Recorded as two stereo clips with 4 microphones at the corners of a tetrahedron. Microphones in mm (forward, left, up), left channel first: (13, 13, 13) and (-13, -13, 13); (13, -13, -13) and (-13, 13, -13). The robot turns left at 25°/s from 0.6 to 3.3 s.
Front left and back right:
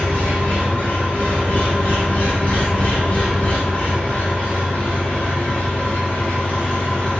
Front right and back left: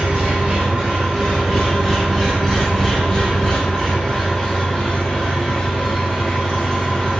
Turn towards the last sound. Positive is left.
turn(degrees=20)